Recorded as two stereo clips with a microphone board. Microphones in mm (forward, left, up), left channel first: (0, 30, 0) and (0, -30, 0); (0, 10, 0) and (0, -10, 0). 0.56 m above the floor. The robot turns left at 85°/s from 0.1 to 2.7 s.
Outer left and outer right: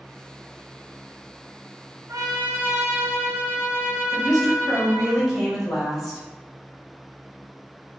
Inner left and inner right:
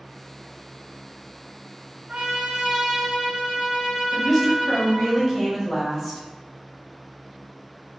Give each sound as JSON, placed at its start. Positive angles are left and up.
{"t": 2.1, "sound": "a trumpet", "azimuth_deg": -95, "distance_m": 1.1}
{"t": 4.1, "sound": "a woman speaking", "side_deg": 0, "distance_m": 1.5}